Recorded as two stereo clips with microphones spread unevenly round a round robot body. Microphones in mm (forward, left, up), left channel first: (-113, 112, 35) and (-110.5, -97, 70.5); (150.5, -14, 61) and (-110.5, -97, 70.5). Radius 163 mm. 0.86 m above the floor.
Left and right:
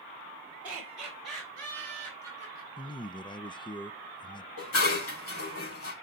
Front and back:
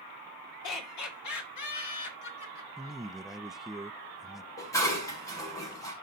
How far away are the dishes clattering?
About 4 m.